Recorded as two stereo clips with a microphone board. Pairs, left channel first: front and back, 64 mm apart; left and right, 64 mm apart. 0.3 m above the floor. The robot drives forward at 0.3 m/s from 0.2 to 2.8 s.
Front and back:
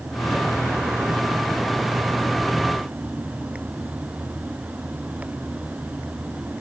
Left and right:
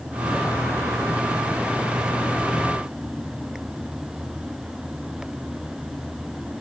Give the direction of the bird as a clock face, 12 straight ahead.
I don't hear a bird.